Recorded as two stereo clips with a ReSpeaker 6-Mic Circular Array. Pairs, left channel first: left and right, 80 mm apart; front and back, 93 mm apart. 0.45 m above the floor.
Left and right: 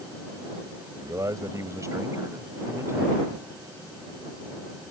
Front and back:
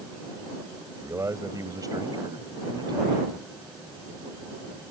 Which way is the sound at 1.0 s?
125° right.